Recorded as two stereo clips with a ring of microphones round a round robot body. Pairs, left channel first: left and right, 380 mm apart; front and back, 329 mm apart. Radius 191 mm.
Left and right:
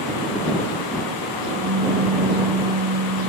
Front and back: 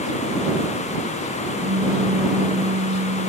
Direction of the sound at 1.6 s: 130° right.